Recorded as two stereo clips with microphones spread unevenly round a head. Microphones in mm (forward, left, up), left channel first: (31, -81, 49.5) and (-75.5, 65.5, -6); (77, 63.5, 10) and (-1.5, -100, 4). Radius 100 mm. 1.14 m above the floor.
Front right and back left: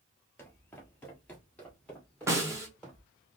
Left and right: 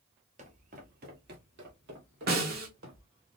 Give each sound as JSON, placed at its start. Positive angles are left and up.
{"t": 0.4, "sound": "footsteps", "azimuth_deg": -95, "distance_m": 1.3}
{"t": 2.3, "sound": "a snare drum", "azimuth_deg": -150, "distance_m": 1.1}